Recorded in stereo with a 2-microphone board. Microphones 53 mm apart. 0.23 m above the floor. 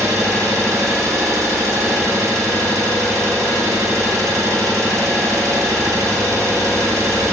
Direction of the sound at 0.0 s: 70° right (ahead or behind).